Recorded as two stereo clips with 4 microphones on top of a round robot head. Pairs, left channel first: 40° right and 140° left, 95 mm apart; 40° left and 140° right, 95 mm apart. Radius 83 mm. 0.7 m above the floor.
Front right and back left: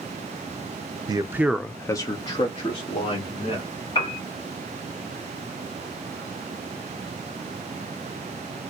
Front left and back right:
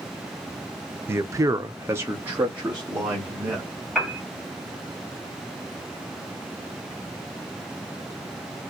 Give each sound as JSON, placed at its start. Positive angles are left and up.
{"t": 1.1, "sound": "a man speaking", "azimuth_deg": 165, "distance_m": 0.6}
{"t": 4.0, "sound": "a piano", "azimuth_deg": -50, "distance_m": 2.5}